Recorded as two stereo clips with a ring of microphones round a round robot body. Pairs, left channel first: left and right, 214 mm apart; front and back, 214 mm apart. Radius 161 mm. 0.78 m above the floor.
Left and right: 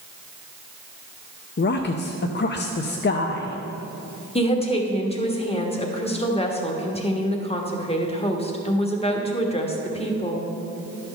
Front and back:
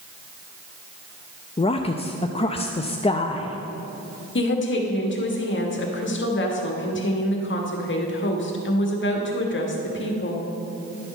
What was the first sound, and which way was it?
A woman speaking, 60° left.